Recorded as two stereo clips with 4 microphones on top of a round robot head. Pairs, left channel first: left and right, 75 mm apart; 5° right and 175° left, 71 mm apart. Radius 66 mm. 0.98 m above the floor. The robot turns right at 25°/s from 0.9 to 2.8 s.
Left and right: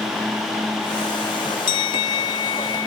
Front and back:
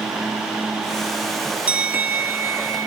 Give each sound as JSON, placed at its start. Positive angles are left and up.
{"t": 1.7, "sound": "a bell", "azimuth_deg": 105, "distance_m": 1.0}